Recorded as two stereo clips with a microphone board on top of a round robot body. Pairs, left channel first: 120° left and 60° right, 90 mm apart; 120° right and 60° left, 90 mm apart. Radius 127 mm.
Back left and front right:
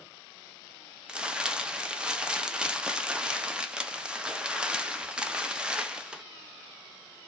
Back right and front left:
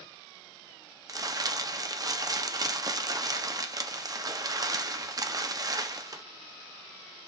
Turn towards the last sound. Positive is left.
turn(degrees=20)